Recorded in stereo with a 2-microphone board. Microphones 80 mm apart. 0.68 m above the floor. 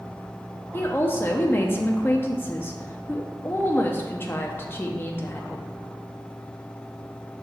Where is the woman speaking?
30° left (ahead or behind), 0.6 m.